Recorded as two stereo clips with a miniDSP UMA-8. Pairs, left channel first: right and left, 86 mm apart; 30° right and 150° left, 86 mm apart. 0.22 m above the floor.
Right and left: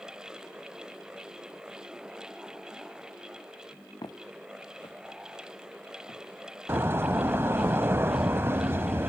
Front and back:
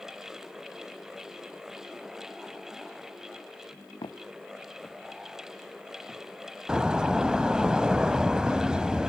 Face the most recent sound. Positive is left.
turn(degrees=80)